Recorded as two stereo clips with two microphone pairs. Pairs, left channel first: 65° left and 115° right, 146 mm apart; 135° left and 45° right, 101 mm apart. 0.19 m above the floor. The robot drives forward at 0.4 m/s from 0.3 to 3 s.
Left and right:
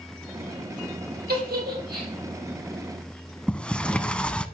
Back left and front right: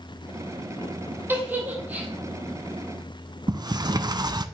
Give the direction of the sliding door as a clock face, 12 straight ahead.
1 o'clock.